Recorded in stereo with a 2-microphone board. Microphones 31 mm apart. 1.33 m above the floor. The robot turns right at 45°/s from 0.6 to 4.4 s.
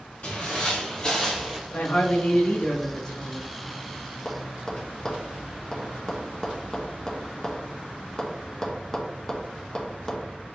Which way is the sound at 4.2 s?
15° left (ahead or behind).